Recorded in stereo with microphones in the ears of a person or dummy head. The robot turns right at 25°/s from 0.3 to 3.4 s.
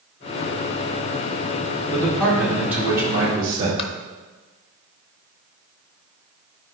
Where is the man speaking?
170° left, 2.0 m; by 3.7 s 155° right, 2.0 m.